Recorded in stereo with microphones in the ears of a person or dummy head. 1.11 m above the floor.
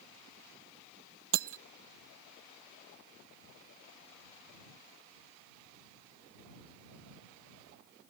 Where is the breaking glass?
70° right (ahead or behind).